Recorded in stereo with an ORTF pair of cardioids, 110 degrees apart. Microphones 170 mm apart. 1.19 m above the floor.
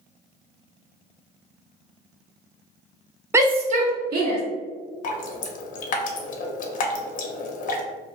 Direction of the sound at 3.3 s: 15° right.